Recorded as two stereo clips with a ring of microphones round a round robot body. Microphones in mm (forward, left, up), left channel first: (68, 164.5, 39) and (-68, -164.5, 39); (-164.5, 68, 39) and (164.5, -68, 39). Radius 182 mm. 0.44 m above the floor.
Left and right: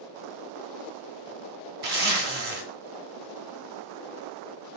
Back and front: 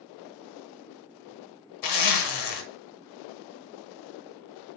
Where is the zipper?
Straight behind, 0.6 m.